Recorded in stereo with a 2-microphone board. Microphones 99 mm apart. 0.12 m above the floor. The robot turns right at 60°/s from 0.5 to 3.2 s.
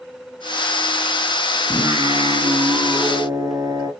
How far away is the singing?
About 2.0 m.